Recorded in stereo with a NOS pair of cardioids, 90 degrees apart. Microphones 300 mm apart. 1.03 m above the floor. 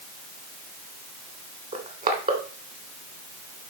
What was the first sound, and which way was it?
Crushing, 30° right.